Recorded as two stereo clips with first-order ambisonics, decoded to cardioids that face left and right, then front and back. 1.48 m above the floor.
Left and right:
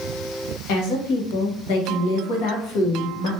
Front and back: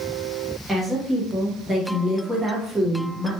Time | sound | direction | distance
0.7 | a woman speaking | 95° left | 1.1 m